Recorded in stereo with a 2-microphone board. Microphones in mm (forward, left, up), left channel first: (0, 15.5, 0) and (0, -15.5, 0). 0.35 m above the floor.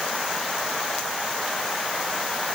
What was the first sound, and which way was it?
Only background noise.